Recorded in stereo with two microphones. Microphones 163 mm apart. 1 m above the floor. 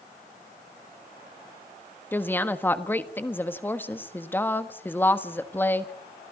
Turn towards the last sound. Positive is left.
turn(degrees=15)  # may be behind; listen again after turning